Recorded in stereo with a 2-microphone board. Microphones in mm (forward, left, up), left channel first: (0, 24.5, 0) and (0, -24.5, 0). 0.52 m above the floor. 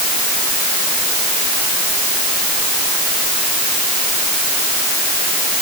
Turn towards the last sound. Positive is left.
No sound to turn to.